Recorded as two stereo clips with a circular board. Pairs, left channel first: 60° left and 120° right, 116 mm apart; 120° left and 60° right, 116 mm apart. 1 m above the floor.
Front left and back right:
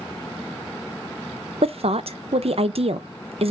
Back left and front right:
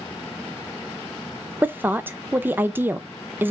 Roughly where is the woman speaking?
Behind right.